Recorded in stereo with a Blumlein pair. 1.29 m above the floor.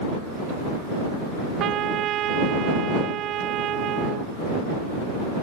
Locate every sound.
1.6 s a trumpet: 35° right